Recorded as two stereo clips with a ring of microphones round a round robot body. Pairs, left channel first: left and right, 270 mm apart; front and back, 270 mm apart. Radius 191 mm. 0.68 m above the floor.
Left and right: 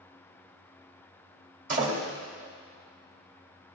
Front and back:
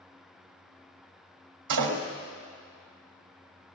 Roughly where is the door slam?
Behind right.